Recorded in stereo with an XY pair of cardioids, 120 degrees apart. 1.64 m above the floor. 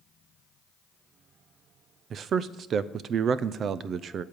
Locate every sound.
2.1 s a man speaking: 50° right, 0.5 m